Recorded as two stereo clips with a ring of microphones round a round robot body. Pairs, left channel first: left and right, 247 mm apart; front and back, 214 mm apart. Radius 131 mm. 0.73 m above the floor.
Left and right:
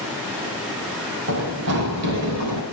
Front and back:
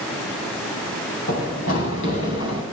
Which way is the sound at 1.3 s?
60° right.